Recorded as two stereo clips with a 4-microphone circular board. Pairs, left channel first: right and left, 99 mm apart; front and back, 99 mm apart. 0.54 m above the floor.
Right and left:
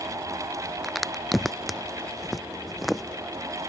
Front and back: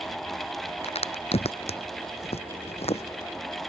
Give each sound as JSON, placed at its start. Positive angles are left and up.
{"t": 0.8, "sound": "a crack", "azimuth_deg": 0}